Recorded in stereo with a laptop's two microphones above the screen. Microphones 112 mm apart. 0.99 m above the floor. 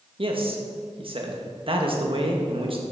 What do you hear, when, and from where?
0.2 s a man speaking: 50° right (ahead or behind), 1.5 m